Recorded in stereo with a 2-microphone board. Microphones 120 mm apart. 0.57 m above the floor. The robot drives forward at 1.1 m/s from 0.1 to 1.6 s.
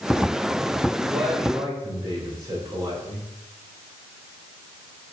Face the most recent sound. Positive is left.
turn(degrees=-35)  # may be behind; listen again after turning